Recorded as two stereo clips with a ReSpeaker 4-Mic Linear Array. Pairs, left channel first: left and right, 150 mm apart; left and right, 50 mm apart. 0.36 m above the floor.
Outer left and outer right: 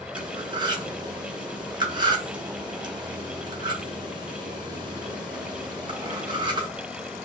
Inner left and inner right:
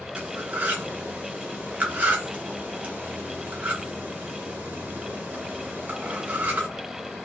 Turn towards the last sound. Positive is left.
turn(degrees=-30)  # may be behind; listen again after turning